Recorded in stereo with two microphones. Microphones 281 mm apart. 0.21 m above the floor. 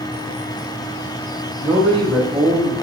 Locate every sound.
1.6 s a man speaking: 25° right (ahead or behind), 1.5 m; by 2.7 s 10° left (ahead or behind), 1.1 m